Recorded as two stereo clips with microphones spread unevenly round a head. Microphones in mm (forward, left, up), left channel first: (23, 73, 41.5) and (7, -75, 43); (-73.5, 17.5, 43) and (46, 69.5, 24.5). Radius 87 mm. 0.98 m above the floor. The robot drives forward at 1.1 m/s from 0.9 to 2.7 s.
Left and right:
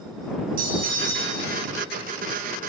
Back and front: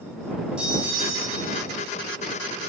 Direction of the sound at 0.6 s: 60° right.